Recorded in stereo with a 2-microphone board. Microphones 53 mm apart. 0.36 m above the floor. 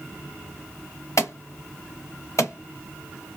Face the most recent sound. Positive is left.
turn(degrees=70)  # may be behind; listen again after turning